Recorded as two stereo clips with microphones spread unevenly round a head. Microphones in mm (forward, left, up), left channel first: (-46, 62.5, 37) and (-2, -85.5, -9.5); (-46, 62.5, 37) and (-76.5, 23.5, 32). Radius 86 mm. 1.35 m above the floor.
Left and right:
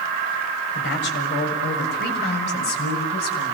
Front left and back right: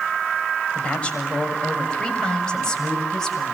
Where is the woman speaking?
115° left, 7 m; by 3.5 s 130° left, 7.5 m.